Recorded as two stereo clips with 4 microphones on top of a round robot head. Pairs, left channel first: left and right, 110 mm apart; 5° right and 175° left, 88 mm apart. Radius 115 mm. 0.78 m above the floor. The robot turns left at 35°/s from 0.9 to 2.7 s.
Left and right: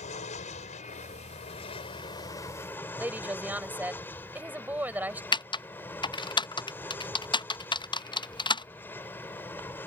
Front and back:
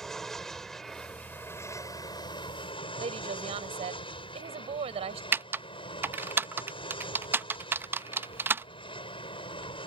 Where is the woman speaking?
165° right.